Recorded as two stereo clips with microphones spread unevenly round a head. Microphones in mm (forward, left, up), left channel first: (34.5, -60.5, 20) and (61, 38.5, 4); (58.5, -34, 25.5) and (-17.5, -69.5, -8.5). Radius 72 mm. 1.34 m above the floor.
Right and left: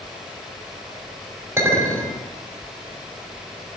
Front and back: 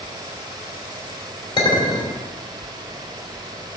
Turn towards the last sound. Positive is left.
turn(degrees=10)